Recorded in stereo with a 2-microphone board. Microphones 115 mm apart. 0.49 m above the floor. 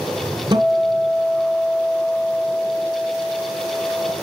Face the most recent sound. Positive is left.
turn(degrees=-40)  # may be behind; listen again after turning